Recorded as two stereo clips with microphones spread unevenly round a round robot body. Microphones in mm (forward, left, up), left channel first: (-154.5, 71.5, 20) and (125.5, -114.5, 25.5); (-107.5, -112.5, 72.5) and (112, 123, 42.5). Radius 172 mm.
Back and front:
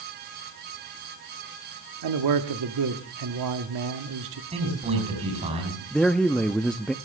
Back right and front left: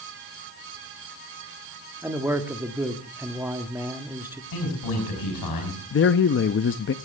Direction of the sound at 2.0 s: 30° right.